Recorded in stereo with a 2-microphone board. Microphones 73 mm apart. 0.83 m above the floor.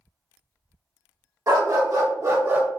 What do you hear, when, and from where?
1.5 s a dog barking: 50° right (ahead or behind), 1.2 m; by 2.7 s 20° right (ahead or behind), 0.6 m